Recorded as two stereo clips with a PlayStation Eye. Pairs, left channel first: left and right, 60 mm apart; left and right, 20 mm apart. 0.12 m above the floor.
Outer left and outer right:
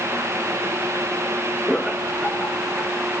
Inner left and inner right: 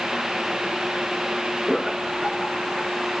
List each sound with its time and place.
1.7 s laughter: 5° right (ahead or behind), 1.9 m